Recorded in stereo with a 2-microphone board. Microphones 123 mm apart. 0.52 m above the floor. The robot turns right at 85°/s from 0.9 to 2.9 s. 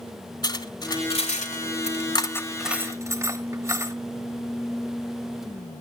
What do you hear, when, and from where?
0.4 s cutlery clinking: 35° left (ahead or behind), 1.4 m; by 3.9 s 25° right (ahead or behind), 1.4 m